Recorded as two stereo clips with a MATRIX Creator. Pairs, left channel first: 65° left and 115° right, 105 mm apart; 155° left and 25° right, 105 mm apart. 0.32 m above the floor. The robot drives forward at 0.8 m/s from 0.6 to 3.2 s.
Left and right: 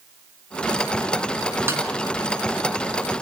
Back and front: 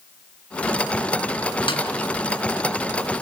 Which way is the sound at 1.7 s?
175° right.